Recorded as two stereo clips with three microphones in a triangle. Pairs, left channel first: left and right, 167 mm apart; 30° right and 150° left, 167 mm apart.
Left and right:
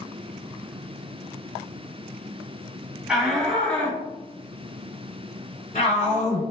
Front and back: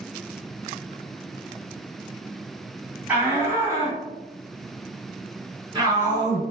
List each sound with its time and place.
3.1 s a shout: 160° right, 1.7 m; by 6.4 s 95° left, 2.5 m